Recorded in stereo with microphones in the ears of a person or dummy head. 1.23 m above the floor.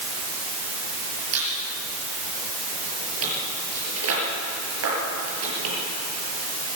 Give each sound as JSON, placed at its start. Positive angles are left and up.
{"t": 1.3, "sound": "a squeak", "side_deg": -80, "distance_m": 6.0}